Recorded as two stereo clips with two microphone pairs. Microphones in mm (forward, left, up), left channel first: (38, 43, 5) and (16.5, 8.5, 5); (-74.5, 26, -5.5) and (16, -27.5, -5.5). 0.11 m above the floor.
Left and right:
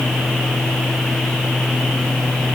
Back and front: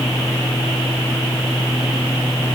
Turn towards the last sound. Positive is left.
No sound to turn to.